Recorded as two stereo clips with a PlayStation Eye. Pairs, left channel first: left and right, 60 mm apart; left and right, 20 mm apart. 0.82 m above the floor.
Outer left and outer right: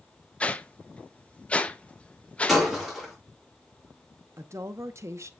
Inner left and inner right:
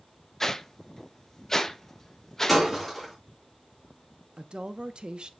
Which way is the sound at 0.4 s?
20° left (ahead or behind).